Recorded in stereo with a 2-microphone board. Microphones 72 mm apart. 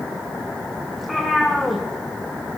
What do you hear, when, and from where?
0.9 s a cat meowing: centre (ahead or behind), 2 m